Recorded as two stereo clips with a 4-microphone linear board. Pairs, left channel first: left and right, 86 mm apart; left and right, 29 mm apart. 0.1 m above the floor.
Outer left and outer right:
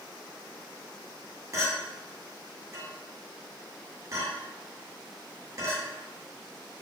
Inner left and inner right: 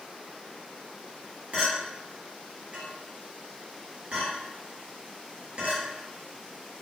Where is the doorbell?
I don't hear a doorbell.